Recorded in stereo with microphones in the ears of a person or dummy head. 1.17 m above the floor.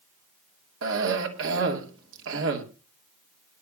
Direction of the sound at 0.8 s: 70° right (ahead or behind).